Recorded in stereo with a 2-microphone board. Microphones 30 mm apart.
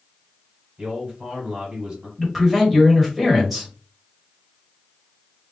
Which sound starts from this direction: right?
A man speaking, at 0.8 s.